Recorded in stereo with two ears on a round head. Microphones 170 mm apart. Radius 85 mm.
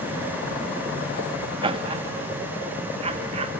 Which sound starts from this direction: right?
Laughter, at 1.6 s.